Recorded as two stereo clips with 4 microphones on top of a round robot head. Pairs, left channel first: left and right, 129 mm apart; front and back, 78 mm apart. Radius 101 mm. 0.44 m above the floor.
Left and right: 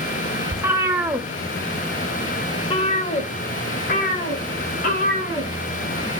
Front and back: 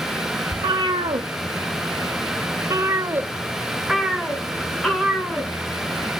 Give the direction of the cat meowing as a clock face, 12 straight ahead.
5 o'clock.